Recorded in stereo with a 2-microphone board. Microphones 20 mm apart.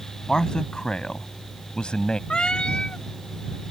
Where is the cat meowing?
55° left (ahead or behind).